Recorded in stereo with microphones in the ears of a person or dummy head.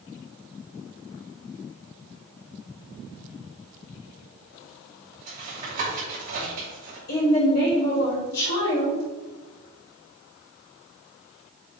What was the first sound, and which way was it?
Tapping, 40° right (ahead or behind).